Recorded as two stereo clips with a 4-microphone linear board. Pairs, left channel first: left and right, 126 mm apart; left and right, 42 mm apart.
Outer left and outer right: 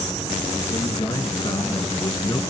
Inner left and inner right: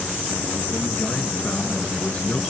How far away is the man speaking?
About 3 m.